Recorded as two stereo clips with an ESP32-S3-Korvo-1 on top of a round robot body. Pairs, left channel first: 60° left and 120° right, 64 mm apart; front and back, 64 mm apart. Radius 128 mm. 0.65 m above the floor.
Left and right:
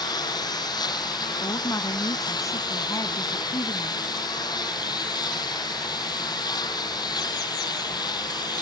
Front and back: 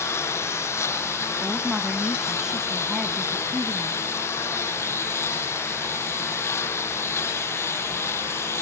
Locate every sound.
0.0 s a lawn mower: 50° left
1.4 s a woman speaking: 100° left